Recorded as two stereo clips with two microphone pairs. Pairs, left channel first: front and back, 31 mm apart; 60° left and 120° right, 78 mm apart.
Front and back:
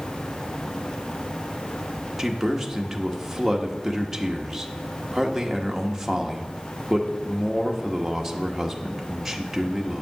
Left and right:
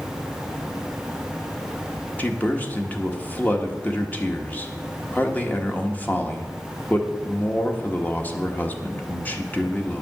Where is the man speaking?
110° left, 1.2 m.